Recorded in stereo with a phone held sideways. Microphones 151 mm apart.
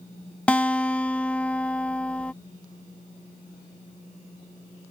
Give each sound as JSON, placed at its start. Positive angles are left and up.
{"t": 0.5, "sound": "a guitar", "side_deg": 10}